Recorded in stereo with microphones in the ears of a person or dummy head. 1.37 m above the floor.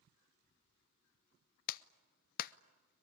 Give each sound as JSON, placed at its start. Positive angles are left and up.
{"t": 1.7, "sound": "a clap", "side_deg": 45, "distance_m": 0.6}